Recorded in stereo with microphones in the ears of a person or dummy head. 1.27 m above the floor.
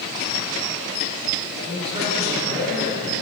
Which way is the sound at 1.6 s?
35° right (ahead or behind).